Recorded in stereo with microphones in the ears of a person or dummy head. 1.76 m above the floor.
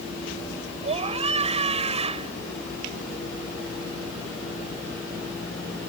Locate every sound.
0.8 s a scream: 35° right (ahead or behind)